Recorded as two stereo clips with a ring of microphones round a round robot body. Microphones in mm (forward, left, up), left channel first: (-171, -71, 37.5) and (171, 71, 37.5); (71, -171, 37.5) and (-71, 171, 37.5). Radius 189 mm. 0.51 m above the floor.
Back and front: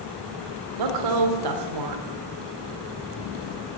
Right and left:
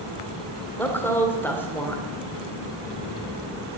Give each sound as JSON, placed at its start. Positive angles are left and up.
{"t": 0.8, "sound": "a woman speaking", "azimuth_deg": 15, "distance_m": 1.8}